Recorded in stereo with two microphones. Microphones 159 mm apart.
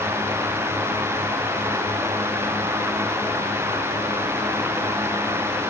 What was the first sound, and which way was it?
Only background noise.